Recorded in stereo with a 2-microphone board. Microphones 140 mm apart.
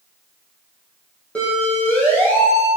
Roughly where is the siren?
Centre.